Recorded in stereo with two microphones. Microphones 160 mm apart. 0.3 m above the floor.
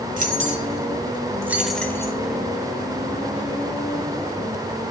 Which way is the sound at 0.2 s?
55° right (ahead or behind).